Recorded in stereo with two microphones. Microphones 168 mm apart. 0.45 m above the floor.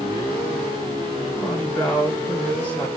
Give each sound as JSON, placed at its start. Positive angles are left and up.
{"t": 1.3, "sound": "a woman speaking", "side_deg": 10, "distance_m": 7.0}